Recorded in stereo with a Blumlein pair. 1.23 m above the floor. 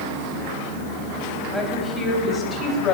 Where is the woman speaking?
10° left, 3 m; by 3.0 s 30° left, 3 m.